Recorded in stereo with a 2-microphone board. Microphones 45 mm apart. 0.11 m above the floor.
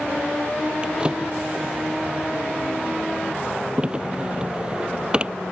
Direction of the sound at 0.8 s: 20° right (ahead or behind).